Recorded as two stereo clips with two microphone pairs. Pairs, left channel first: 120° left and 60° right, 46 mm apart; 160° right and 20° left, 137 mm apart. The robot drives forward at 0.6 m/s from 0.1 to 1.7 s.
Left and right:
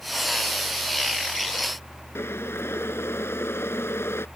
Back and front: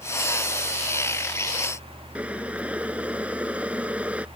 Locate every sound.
2.1 s boiling: 100° left